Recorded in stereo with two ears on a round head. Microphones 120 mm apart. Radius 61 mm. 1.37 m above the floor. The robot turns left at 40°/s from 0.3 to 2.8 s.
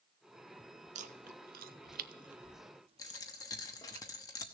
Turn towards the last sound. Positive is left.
turn(degrees=25)  # may be behind; listen again after turning